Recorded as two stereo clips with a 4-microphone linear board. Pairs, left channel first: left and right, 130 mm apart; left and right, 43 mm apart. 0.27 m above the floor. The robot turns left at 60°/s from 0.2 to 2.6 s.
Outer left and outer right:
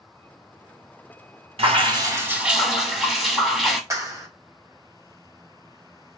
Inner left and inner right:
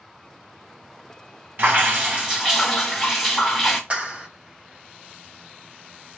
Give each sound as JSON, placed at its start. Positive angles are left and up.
{"t": 1.6, "sound": "dripping", "azimuth_deg": -115, "distance_m": 2.0}
{"t": 3.9, "sound": "a clap", "side_deg": -25, "distance_m": 1.5}